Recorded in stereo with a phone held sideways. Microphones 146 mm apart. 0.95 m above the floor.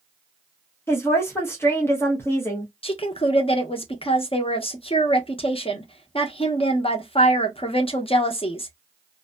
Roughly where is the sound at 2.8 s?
Left.